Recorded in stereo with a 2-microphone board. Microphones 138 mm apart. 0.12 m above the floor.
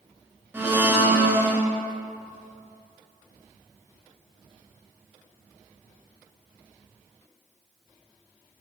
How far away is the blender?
About 0.8 m.